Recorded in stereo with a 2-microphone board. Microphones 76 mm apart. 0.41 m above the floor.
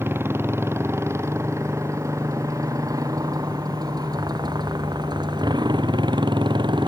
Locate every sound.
0.0 s a motorcycle: 30° right (ahead or behind); by 6.9 s 85° right